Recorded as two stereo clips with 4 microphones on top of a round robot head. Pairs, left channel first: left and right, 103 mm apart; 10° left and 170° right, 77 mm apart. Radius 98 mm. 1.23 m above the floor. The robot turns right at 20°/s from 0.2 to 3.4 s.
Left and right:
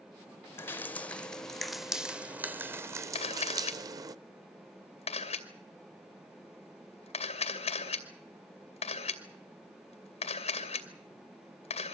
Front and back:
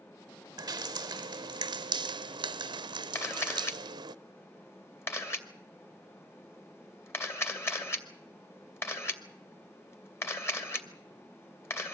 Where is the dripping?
155° left, 0.7 m; by 4.2 s 145° right, 0.7 m.